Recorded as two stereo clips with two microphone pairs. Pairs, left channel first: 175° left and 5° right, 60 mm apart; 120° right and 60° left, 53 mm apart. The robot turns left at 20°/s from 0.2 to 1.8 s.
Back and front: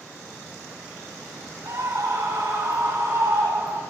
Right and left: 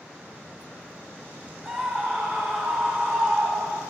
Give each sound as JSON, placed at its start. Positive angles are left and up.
{"t": 1.6, "sound": "a scream", "azimuth_deg": -30, "distance_m": 4.5}